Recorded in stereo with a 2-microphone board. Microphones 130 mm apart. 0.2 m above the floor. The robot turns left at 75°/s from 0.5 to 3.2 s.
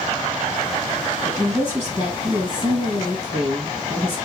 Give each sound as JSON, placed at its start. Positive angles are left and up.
{"t": 1.2, "sound": "a woman speaking", "azimuth_deg": 20, "distance_m": 1.8}